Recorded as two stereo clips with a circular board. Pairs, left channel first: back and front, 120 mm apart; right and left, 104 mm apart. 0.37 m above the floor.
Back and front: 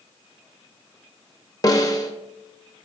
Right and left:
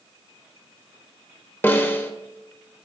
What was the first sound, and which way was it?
A snare drum, 145° right.